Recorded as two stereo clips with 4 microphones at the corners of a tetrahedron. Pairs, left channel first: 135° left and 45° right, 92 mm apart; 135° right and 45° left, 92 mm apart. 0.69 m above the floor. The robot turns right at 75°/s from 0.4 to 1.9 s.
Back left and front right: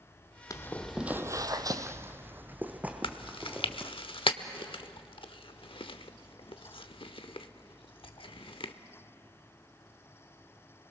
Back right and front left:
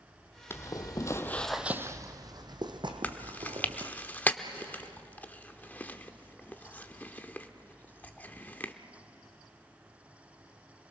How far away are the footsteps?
About 1.0 m.